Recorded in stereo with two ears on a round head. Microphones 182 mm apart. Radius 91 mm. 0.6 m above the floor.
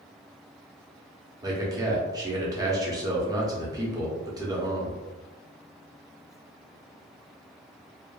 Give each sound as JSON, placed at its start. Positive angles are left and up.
{"t": 1.4, "sound": "a man speaking", "side_deg": -20, "distance_m": 0.7}